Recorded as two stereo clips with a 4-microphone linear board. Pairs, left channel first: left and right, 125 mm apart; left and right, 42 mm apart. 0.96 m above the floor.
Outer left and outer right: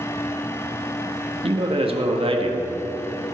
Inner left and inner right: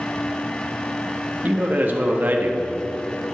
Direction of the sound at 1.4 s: 50° right (ahead or behind).